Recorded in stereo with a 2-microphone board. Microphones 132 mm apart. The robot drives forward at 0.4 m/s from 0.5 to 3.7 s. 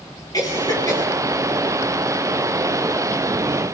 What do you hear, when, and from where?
0.3 s a cough: 30° left (ahead or behind), 10 m; by 1.0 s 25° left (ahead or behind), 10 m